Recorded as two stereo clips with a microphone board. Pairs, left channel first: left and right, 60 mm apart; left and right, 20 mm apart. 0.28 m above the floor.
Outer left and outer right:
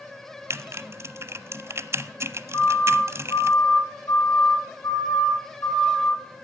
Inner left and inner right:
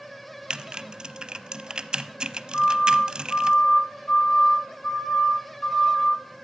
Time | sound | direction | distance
0.5 | typing on a keyboard | 50° right (ahead or behind) | 0.6 m
2.5 | a siren | 65° left (ahead or behind) | 3.5 m